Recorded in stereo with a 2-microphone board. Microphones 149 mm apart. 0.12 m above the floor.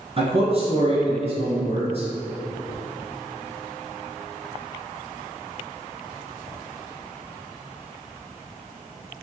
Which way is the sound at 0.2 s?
40° right (ahead or behind).